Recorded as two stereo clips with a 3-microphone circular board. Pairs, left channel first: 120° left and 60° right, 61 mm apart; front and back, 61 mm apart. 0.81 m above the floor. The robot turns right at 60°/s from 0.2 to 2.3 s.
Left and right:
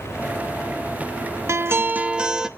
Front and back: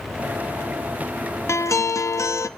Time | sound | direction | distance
1.5 | a guitar | 30° right | 0.7 m